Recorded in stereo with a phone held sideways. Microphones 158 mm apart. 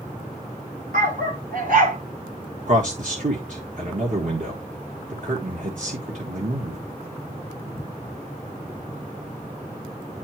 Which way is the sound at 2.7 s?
60° right (ahead or behind).